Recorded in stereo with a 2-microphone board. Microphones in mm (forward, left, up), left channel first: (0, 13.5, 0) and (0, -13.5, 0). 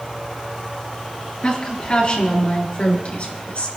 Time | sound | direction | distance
1.4 | a woman speaking | 40° left (ahead or behind) | 5 m